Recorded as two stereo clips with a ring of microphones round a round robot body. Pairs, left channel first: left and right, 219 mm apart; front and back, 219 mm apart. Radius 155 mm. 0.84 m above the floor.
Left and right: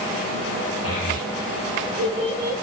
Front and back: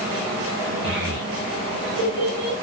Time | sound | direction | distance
0.8 | a child speaking | 150° left | 3 m